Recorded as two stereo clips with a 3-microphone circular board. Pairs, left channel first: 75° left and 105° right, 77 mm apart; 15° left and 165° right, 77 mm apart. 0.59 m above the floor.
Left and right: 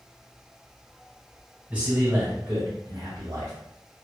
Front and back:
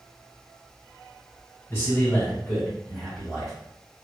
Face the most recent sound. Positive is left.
turn(degrees=-75)